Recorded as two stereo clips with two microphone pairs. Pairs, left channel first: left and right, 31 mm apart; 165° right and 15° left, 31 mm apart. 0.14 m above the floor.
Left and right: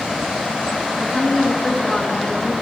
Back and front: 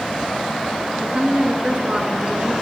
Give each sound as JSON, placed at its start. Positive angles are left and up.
{"t": 1.0, "sound": "a woman speaking", "azimuth_deg": 40, "distance_m": 1.8}